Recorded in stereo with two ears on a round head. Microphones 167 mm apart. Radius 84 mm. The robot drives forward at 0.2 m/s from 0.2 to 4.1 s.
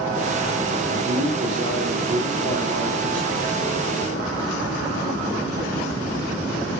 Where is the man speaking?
50° right (ahead or behind), 1.7 m; by 3.5 s 40° right (ahead or behind), 2 m.